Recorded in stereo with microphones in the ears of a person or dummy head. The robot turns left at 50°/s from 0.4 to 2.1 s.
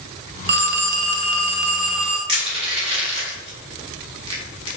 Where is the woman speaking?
No woman speaking in this recording.